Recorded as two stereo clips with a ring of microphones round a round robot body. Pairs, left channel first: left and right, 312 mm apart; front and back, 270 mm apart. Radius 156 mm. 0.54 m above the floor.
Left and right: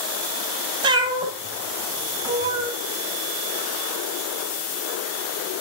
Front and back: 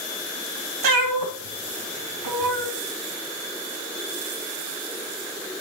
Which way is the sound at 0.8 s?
165° right.